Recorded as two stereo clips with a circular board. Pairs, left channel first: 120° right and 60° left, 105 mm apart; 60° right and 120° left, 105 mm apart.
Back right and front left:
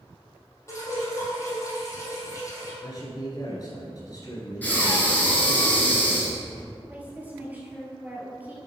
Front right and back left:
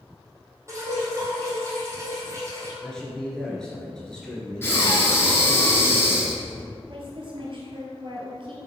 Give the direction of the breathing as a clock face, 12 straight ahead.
2 o'clock.